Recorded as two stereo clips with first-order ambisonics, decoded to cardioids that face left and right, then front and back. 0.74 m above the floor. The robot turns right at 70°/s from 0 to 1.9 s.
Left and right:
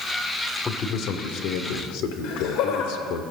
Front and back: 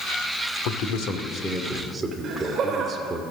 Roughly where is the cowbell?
No cowbell in this recording.